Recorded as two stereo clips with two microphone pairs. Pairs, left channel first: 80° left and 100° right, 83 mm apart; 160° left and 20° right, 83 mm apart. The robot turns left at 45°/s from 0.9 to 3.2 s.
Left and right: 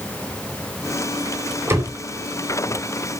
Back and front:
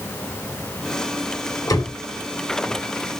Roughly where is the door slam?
Behind right.